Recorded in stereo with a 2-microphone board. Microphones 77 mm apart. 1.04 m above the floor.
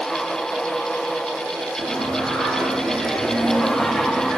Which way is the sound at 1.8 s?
Centre (ahead or behind).